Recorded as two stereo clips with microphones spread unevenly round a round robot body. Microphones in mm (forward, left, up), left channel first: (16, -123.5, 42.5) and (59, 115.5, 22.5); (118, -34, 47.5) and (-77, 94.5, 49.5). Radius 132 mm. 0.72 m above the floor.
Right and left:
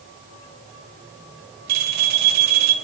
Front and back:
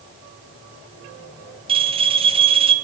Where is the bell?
80° left, 3 m.